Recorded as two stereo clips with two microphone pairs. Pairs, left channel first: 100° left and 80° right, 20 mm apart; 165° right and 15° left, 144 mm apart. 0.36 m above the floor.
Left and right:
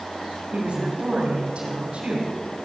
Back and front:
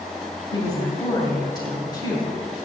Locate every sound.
0.5 s a woman speaking: 110° right, 2.5 m